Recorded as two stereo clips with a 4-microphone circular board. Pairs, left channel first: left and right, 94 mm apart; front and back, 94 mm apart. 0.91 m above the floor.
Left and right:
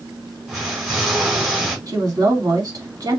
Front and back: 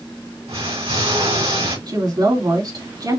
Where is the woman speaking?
140° right, 2.5 m.